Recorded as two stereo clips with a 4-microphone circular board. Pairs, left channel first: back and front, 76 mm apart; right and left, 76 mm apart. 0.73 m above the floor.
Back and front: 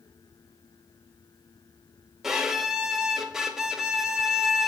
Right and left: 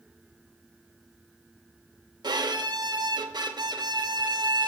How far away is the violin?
About 0.6 m.